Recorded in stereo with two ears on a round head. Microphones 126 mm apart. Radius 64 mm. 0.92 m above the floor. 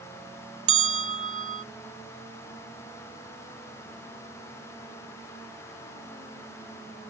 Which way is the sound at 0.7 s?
55° right (ahead or behind).